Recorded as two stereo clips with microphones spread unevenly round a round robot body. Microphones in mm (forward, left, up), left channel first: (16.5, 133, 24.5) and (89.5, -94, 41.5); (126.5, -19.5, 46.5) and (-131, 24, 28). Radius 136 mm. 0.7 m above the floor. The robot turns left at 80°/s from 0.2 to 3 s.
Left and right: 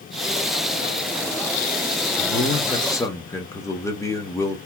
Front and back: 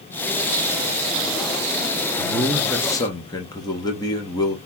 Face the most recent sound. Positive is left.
turn(degrees=55)